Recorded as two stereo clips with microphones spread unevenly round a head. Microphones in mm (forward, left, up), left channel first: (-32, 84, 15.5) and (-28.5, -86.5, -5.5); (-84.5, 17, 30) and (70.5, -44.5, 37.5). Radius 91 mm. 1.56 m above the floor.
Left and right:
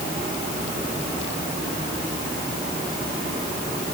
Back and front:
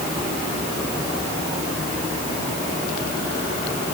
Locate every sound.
Only background noise.